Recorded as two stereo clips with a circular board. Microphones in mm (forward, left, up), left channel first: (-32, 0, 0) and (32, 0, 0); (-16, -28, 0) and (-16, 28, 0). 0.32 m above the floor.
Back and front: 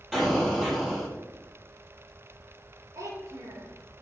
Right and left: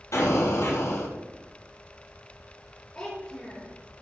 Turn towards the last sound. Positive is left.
turn(degrees=-25)